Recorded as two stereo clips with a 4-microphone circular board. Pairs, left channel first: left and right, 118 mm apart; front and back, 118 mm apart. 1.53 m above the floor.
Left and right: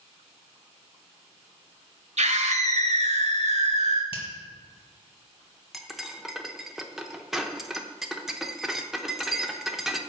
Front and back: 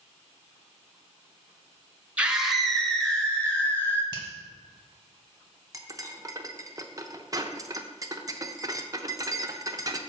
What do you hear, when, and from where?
2.2 s a scream: 100° right, 1.0 m; by 4.0 s 75° right, 2 m
4.1 s a finger snap: 130° left, 1.4 m
5.7 s cutlery clinking: 175° right, 0.7 m